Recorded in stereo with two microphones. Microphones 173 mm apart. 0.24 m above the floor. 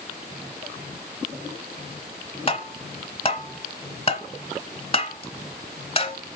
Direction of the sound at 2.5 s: 35° left (ahead or behind).